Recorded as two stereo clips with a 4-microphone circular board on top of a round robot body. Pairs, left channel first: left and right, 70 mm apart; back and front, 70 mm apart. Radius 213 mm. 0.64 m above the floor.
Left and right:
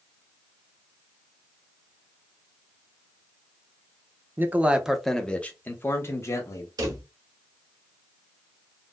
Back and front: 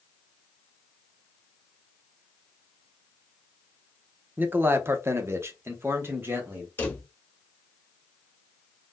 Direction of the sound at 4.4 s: 50° right.